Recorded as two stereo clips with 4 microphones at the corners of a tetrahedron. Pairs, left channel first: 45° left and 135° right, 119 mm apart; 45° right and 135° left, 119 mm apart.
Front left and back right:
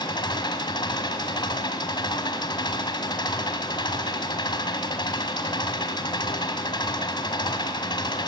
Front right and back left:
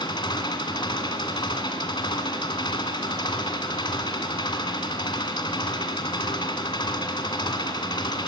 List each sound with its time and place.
0.0 s an engine running: straight ahead, 1.8 m